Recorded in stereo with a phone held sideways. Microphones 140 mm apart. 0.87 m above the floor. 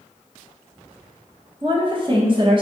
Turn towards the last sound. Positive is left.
turn(degrees=-35)  # may be behind; listen again after turning